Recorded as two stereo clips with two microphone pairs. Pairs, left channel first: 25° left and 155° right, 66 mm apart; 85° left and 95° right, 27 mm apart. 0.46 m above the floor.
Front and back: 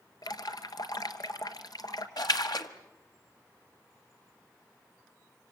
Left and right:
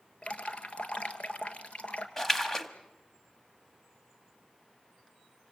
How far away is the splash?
About 1.4 m.